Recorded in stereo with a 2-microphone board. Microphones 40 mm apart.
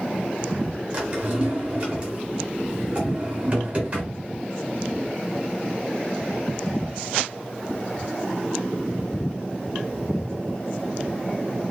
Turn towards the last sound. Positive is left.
turn(degrees=-25)  # may be behind; listen again after turning